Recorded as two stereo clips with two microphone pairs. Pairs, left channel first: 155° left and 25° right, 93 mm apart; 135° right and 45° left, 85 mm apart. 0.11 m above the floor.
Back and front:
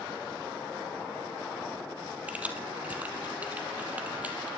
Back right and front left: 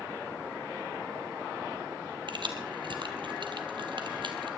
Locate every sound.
2.3 s keys jangling: 45° left, 2 m